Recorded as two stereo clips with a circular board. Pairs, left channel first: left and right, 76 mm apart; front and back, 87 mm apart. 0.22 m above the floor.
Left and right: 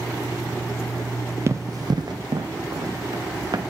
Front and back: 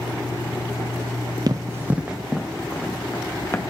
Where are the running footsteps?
140° right, 0.6 m; by 3.6 s 60° right, 1.5 m.